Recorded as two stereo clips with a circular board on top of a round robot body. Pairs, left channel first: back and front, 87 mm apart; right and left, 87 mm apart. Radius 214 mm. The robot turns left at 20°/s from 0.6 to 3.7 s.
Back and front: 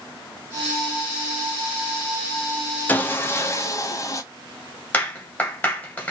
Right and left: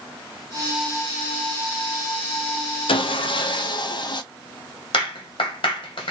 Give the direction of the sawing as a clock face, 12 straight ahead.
4 o'clock.